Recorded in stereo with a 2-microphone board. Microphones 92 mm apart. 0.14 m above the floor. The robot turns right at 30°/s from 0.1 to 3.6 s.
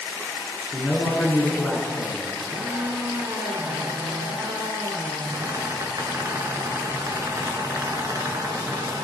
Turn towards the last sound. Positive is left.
turn(degrees=-130)